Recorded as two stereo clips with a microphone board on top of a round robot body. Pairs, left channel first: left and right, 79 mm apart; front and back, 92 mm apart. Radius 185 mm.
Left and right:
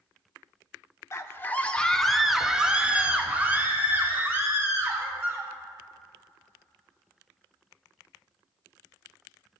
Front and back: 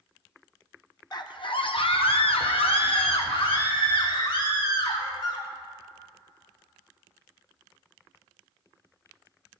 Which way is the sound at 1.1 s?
40° left.